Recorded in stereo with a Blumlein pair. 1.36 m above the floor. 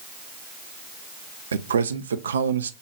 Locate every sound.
1.5 s a man speaking: 70° right, 0.5 m